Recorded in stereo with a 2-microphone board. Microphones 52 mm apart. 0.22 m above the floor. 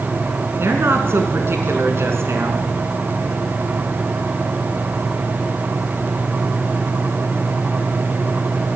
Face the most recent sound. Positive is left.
turn(degrees=-55)  # may be behind; listen again after turning